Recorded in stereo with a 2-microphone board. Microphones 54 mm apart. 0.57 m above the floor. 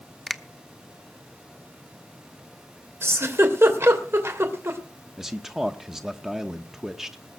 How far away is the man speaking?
About 0.8 m.